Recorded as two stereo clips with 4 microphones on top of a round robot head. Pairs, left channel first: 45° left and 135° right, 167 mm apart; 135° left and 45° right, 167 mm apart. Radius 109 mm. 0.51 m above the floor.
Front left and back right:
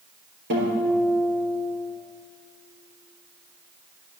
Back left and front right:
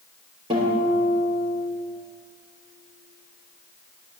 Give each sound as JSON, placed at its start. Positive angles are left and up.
{"t": 0.5, "sound": "a guitar", "azimuth_deg": -110, "distance_m": 3.5}